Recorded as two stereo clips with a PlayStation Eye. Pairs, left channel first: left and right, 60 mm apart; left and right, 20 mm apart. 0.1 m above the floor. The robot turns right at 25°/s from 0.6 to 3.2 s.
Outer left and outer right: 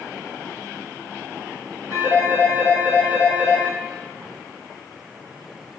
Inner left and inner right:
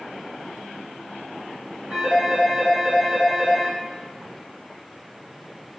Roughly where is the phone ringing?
Ahead right.